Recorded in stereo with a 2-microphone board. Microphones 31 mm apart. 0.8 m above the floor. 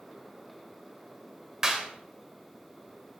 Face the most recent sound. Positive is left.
turn(degrees=-25)  # may be behind; listen again after turning